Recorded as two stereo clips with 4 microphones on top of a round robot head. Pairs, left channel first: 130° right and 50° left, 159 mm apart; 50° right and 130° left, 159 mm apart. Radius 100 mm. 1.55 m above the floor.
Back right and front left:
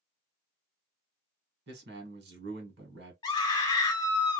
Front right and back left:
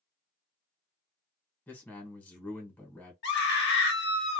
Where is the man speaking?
30° left, 1.2 m.